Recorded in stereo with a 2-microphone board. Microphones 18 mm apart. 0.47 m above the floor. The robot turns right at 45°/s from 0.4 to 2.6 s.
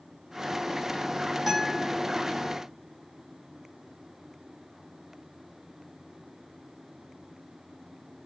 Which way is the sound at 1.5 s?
20° right (ahead or behind).